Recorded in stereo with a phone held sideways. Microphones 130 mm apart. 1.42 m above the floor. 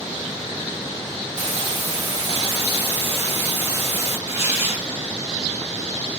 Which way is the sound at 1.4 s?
60° right (ahead or behind).